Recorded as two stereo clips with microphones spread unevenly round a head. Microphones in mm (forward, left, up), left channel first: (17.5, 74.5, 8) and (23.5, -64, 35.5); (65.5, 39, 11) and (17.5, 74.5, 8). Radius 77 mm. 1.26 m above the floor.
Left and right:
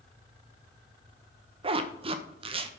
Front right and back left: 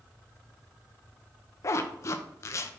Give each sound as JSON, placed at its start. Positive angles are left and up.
{"t": 1.6, "sound": "a zipper", "azimuth_deg": -40, "distance_m": 0.6}